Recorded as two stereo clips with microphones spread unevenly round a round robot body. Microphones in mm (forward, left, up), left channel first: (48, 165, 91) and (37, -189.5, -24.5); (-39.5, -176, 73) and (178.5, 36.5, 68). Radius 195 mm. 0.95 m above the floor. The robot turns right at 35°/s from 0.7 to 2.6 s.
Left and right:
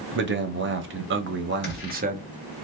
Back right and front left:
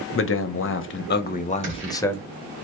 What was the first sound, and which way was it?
A man speaking, 105° right.